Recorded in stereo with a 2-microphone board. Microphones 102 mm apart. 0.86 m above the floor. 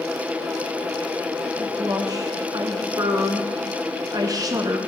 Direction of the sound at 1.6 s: 35° right (ahead or behind).